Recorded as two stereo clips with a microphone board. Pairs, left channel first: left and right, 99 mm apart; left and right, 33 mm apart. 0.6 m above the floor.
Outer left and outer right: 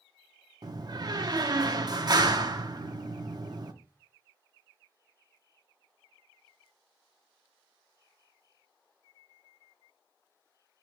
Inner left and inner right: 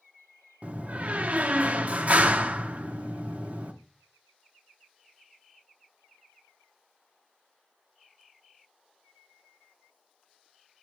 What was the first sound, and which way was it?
A door slam, 40° right (ahead or behind).